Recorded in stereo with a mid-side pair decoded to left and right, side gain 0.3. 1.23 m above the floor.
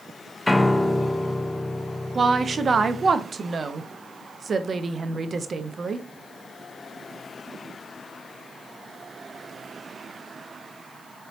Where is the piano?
15° left, 0.5 m.